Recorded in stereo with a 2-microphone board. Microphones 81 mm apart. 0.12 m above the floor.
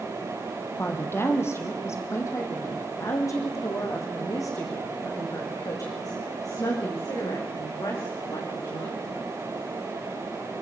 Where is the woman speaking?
30° left (ahead or behind), 3.5 m; by 8.9 s 50° left (ahead or behind), 12 m.